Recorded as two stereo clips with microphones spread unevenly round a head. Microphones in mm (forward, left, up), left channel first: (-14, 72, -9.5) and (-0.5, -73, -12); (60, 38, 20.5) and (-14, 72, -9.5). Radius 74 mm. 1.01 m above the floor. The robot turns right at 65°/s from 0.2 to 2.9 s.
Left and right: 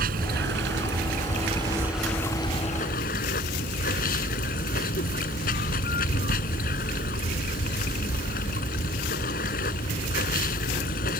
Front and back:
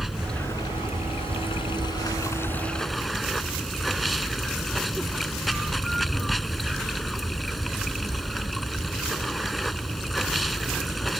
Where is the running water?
110° right; by 11.2 s 65° left.